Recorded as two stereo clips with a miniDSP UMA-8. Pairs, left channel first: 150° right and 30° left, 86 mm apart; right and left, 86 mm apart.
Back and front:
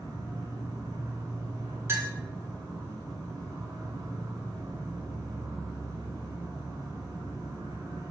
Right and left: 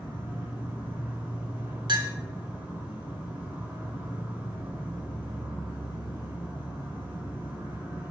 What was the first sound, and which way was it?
An insect, 45° left.